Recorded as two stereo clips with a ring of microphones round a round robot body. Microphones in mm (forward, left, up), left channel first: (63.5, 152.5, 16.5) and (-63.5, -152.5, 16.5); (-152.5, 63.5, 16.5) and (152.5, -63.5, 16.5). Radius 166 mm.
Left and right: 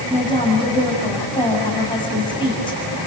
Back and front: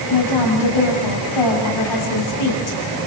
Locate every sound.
0.1 s a woman speaking: 145° left, 6 m